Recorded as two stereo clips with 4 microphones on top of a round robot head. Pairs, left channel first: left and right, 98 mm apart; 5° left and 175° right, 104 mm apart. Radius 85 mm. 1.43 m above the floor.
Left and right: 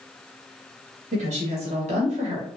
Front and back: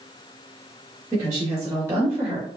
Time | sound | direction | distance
1.1 | a woman speaking | 110° right | 2 m